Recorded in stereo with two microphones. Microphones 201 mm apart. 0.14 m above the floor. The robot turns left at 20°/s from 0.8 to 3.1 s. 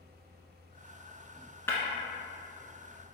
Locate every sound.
1.7 s breaking glass: 10° left (ahead or behind), 1.0 m